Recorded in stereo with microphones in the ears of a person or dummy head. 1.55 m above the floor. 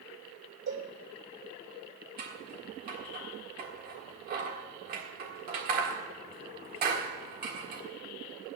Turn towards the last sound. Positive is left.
turn(degrees=-45)  # may be behind; listen again after turning